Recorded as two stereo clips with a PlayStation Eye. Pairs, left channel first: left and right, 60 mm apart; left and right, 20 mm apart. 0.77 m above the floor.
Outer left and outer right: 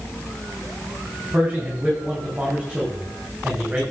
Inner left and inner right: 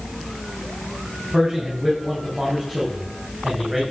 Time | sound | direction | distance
1.3 | a man speaking | 35° right (ahead or behind) | 5.5 m